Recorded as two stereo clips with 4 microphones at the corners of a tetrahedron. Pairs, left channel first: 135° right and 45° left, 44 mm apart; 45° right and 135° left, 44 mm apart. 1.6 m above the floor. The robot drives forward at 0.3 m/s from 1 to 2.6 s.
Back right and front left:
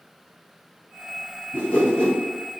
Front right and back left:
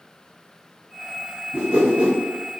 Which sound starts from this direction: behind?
A whoosh, at 1.5 s.